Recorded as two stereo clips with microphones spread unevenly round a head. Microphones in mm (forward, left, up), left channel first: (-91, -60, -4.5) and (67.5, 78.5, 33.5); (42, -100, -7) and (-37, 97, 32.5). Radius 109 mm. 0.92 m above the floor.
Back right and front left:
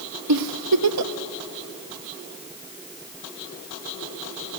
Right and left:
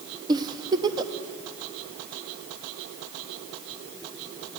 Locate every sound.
0.3 s a giggle: 35° left, 1.0 m